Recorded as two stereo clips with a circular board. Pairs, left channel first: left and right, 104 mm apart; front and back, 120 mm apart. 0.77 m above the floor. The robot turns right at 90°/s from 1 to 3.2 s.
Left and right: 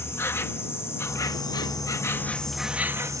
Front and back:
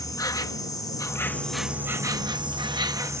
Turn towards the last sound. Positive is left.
turn(degrees=-125)